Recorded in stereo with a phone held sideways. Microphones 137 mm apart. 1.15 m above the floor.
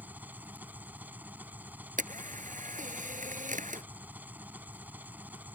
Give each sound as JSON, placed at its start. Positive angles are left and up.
{"t": 0.0, "sound": "an engine running", "side_deg": -15}
{"t": 2.0, "sound": "a camera shutter", "side_deg": -70}